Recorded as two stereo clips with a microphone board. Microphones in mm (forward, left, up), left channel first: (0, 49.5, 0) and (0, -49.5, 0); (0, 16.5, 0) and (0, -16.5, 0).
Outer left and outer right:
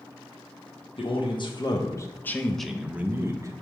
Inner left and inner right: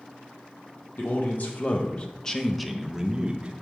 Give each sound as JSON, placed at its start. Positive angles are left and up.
{"t": 1.0, "sound": "a man speaking", "side_deg": 60, "distance_m": 1.0}